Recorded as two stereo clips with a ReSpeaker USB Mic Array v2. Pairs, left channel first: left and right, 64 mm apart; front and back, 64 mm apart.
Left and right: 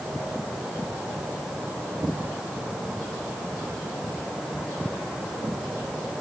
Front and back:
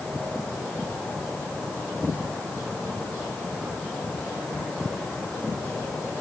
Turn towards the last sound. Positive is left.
No sound to turn to.